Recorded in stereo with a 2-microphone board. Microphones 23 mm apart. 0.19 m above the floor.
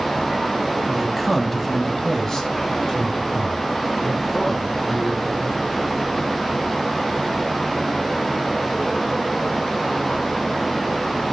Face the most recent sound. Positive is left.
turn(degrees=35)  # may be behind; listen again after turning